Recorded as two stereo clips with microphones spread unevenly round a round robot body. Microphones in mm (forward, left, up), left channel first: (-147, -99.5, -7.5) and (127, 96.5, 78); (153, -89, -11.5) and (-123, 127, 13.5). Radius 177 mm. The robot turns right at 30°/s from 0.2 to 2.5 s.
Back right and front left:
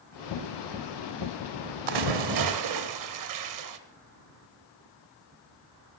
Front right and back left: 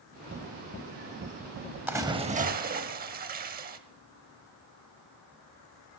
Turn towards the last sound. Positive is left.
turn(degrees=75)